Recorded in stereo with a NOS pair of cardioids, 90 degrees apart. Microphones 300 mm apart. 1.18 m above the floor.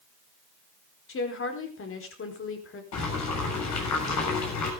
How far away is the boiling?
About 7 m.